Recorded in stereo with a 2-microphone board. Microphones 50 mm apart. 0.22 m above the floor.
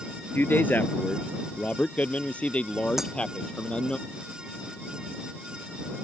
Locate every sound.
0.3 s a man speaking: 45° left (ahead or behind); by 4.0 s 20° left (ahead or behind)
3.0 s breaking glass: 10° right (ahead or behind)